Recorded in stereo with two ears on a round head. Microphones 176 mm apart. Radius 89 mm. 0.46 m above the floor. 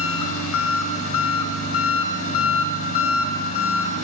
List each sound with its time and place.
0.0 s an engine running: 80° left, 0.8 m